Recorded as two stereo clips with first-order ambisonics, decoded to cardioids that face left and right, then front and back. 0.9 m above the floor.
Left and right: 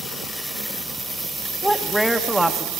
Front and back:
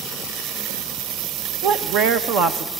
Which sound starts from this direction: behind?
A man speaking, at 1.6 s.